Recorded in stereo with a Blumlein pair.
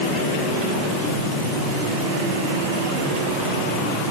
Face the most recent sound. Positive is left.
No sound to turn to.